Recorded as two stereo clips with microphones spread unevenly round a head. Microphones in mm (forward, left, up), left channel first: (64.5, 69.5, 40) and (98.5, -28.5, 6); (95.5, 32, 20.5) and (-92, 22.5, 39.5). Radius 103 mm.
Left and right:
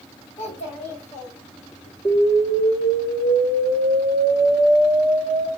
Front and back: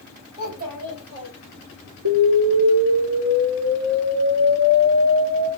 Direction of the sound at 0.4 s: 145° left.